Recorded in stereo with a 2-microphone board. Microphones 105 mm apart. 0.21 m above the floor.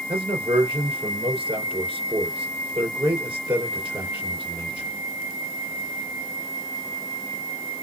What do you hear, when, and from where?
0.1 s a man speaking: 55° right (ahead or behind), 3 m